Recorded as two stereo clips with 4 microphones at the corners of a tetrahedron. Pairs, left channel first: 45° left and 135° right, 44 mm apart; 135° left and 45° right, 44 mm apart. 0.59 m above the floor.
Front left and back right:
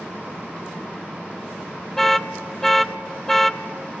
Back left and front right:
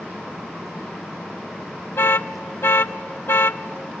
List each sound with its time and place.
2.0 s an alarm: 125° left, 0.5 m